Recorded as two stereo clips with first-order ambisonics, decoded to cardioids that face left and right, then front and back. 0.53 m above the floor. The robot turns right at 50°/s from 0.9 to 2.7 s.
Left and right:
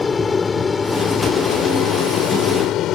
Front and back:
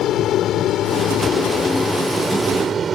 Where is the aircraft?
25° left; by 3.0 s 115° left.